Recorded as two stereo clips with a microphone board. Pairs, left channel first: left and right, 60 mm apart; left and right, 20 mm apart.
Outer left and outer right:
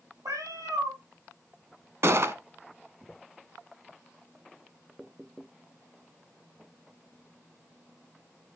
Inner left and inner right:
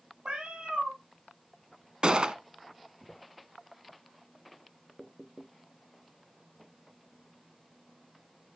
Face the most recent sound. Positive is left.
turn(degrees=-50)  # may be behind; listen again after turning